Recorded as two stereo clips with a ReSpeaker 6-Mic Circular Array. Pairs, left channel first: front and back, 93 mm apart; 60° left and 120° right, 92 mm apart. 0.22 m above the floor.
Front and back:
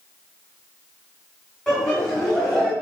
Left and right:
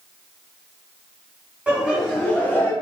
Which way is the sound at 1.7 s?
75° right.